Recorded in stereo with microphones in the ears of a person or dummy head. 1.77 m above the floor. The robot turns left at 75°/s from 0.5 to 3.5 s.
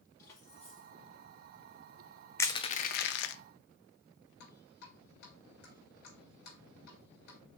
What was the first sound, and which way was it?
Keys jangling, 20° left (ahead or behind).